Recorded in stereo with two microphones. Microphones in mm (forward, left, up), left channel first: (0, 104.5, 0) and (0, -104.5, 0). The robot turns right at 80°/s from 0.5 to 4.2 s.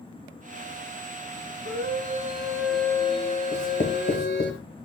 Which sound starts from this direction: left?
Writing, at 3.5 s.